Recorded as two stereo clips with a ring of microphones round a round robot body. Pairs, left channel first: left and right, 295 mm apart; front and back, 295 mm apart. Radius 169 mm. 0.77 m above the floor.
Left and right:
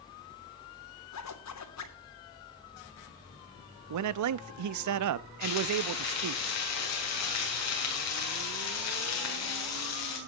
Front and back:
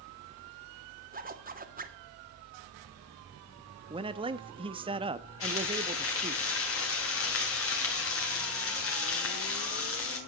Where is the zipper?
120° left, 3 m.